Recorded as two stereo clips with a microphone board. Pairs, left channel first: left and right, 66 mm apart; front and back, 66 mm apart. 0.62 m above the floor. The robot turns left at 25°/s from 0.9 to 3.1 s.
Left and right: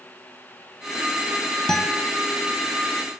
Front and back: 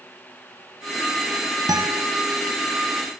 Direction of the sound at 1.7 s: 170° left.